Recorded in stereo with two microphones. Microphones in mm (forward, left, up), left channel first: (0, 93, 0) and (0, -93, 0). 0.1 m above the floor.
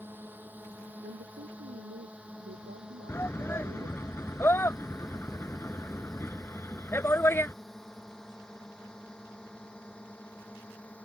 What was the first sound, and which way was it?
A drone, 10° right (ahead or behind).